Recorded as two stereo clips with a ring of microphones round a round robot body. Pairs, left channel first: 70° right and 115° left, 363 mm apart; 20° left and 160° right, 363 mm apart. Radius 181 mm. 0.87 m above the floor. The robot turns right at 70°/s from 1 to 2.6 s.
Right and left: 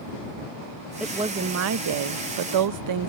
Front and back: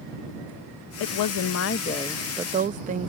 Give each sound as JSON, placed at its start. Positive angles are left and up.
{"t": 1.0, "sound": "a woman speaking", "azimuth_deg": 25}